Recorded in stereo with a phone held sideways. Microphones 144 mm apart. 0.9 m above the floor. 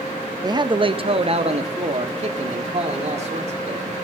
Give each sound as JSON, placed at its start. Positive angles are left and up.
{"t": 0.4, "sound": "a man speaking", "side_deg": -25, "distance_m": 0.6}